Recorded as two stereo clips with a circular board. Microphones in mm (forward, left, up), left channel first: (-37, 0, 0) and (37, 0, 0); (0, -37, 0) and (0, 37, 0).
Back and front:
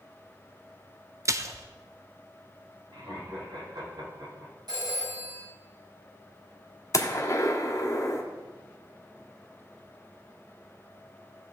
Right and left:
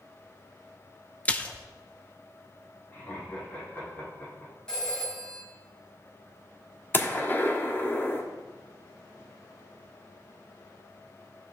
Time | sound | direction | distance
1.2 | a splash | 25° right | 0.6 m
2.9 | laughter | 25° right | 4 m
4.7 | a phone ringing | 10° right | 5 m
6.9 | a gunshot | 150° right | 1.4 m